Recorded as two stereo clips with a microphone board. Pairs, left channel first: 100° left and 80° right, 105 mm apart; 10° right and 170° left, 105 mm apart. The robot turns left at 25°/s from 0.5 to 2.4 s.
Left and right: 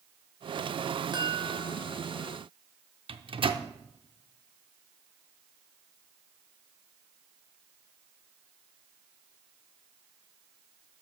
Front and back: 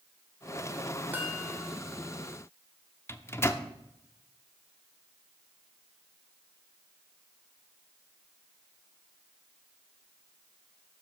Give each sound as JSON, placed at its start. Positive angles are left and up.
{"t": 1.1, "sound": "a chime", "azimuth_deg": -115, "distance_m": 2.0}
{"t": 3.1, "sound": "a microwave", "azimuth_deg": -75, "distance_m": 0.7}